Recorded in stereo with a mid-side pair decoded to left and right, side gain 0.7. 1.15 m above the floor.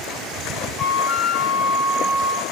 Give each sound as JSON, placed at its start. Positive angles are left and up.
{"t": 0.8, "sound": "a flute", "azimuth_deg": 25, "distance_m": 0.6}